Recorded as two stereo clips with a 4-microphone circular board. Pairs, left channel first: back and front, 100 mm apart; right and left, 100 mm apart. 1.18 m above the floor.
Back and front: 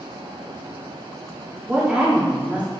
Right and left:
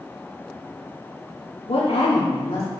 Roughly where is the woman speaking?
Right.